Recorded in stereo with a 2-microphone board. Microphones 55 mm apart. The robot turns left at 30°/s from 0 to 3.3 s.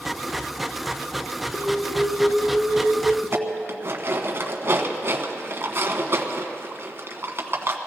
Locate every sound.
1.5 s an alarm: 165° right, 2.5 m; by 3.1 s 150° left, 2.5 m
3.2 s dishes clattering: 45° right (ahead or behind), 1.3 m